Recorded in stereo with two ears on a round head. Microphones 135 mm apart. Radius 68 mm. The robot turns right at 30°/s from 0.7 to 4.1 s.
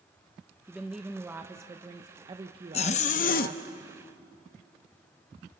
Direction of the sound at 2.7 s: 40° left (ahead or behind).